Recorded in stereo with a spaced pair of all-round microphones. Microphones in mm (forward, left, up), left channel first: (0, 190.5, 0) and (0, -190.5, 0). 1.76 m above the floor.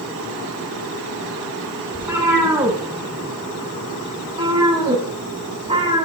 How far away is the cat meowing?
About 9 m.